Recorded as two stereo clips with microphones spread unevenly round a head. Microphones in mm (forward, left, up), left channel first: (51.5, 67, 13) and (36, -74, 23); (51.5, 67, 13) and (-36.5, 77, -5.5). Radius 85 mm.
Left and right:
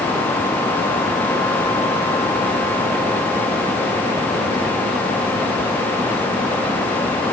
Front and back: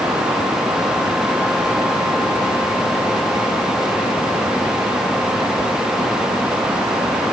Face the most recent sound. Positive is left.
No sound to turn to.